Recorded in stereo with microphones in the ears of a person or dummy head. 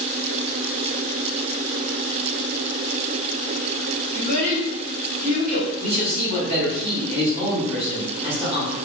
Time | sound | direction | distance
4.1 | a child speaking | 50° right (ahead or behind) | 1.2 m
5.8 | a man speaking | 30° right (ahead or behind) | 1.4 m